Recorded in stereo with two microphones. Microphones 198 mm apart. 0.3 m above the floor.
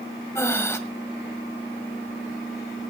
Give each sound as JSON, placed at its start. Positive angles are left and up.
{"t": 0.3, "sound": "breathing", "side_deg": 10, "distance_m": 1.6}